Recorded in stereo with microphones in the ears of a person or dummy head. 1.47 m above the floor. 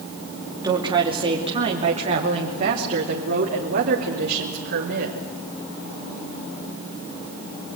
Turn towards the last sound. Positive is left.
turn(degrees=-50)  # may be behind; listen again after turning